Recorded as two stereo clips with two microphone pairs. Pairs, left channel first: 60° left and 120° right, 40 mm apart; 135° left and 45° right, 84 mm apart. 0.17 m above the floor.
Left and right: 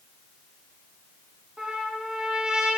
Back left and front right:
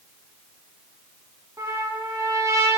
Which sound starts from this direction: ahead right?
A trumpet, at 1.6 s.